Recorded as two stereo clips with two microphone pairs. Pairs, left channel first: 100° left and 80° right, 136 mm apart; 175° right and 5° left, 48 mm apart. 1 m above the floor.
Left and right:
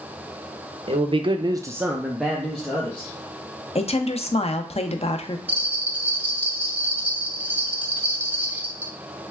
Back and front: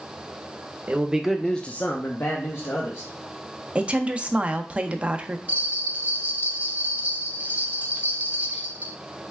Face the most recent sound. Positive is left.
turn(degrees=-15)